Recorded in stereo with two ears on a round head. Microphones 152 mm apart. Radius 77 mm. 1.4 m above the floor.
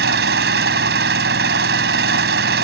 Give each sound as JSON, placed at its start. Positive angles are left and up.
{"t": 0.0, "sound": "an engine running", "side_deg": -65}